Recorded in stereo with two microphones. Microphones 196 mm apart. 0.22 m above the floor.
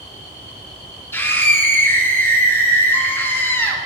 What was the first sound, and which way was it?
A scream, 10° left (ahead or behind).